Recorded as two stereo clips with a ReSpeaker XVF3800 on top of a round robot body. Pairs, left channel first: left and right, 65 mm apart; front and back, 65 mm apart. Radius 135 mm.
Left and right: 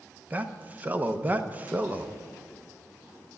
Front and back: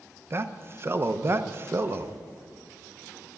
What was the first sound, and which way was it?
A man speaking, 145° right.